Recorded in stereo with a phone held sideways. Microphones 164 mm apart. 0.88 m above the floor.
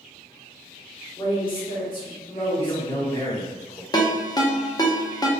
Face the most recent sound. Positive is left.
turn(degrees=25)  # may be behind; listen again after turning